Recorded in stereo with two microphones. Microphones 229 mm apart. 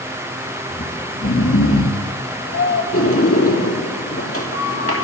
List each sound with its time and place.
0.7 s snoring: 65° left (ahead or behind), 5 m
2.9 s a sliding door: 70° left (ahead or behind), 3.5 m